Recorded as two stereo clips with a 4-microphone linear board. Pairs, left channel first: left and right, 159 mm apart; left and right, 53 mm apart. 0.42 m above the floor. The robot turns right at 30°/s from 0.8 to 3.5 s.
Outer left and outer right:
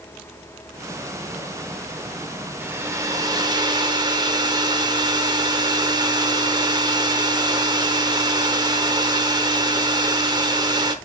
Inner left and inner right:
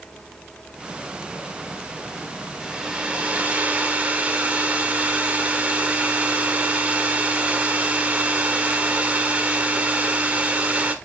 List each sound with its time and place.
2.6 s a hair dryer: 15° right (ahead or behind), 1.0 m; by 10.9 s 30° right (ahead or behind), 1.0 m